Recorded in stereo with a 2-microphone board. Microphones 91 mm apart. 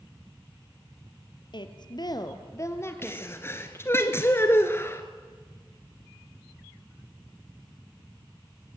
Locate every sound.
1.5 s a woman speaking: 60° left (ahead or behind), 2.5 m; by 3.5 s 10° left (ahead or behind), 3 m
3.0 s a sneeze: 30° left (ahead or behind), 1.4 m